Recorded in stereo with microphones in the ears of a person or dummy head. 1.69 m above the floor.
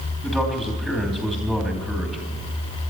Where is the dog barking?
I don't hear a dog barking.